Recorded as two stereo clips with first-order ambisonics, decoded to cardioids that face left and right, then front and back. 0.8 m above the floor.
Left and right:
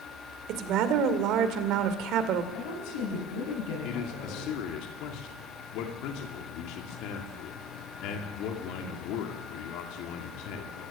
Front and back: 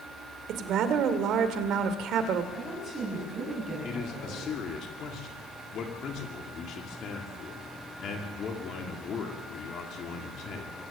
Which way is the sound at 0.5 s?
135° right.